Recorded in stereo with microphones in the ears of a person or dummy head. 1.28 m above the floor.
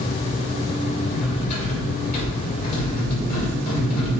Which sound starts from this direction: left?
Cutlery clinking, at 1.1 s.